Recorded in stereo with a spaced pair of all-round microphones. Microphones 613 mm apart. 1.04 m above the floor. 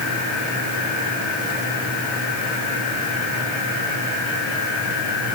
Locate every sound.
Only background noise.